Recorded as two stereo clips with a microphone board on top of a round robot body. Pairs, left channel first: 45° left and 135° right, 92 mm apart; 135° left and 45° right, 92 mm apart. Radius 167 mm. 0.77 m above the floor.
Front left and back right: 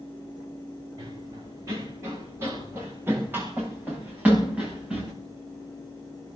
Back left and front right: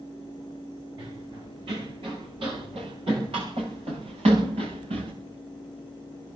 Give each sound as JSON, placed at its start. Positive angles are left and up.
{"t": 1.0, "sound": "running footsteps", "azimuth_deg": -80, "distance_m": 7.5}